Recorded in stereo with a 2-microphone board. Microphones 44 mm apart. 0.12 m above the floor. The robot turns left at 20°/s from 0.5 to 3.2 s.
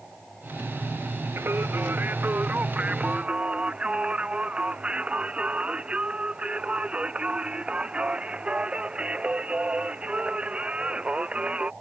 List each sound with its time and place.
1.4 s singing: 115° right; by 11.7 s 150° right